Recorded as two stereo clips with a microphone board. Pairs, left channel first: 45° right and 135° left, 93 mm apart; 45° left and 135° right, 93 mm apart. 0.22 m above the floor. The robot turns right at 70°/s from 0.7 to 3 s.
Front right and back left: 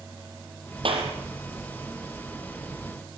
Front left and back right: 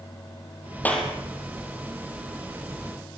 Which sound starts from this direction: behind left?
A clap, at 0.8 s.